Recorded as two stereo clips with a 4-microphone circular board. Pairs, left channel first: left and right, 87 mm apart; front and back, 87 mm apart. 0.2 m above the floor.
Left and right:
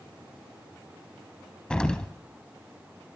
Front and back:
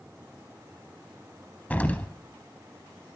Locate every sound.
1.7 s an explosion: 30° left, 0.7 m